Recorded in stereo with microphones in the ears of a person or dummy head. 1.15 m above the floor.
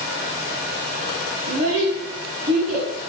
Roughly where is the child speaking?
Right.